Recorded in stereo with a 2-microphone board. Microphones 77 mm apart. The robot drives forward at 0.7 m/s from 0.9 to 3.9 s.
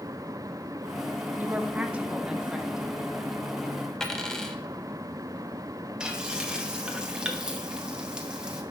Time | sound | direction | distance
1.4 | a woman speaking | 20° right (ahead or behind) | 0.7 m
4.0 | a dropped coin | 5° left (ahead or behind) | 0.9 m
6.0 | frying | 10° right (ahead or behind) | 1.0 m